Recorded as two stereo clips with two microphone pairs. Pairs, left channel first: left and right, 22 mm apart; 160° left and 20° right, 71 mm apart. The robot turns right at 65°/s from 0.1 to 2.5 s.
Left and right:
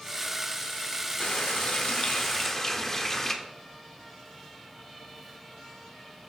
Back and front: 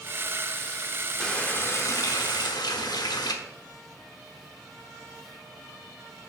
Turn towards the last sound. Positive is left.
turn(degrees=160)